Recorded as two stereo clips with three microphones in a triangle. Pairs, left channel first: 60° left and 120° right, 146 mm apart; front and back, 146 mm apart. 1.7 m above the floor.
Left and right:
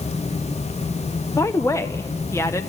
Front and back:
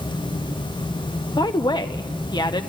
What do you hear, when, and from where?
1.4 s a woman speaking: 10° left, 0.7 m